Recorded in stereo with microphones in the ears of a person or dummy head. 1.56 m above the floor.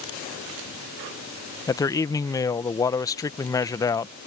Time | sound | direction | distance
1.7 | a man speaking | 20° left (ahead or behind) | ?